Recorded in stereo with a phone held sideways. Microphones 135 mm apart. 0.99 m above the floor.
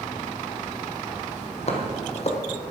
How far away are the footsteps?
About 1.7 m.